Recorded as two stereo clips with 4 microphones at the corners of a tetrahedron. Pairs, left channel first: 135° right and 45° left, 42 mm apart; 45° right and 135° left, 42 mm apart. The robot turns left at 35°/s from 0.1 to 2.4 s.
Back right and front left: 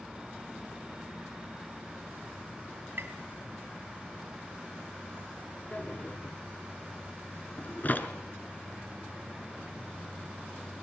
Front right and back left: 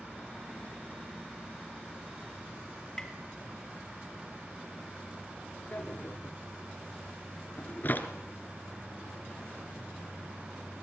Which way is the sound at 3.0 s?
35° left.